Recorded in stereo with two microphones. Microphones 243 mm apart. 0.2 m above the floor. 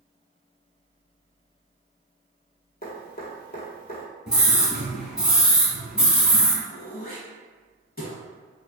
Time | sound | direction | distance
2.8 | dripping | 40° left (ahead or behind) | 1.1 m
4.3 | a scream | 5° right (ahead or behind) | 1.3 m
6.7 | throat clearing | 35° left (ahead or behind) | 0.8 m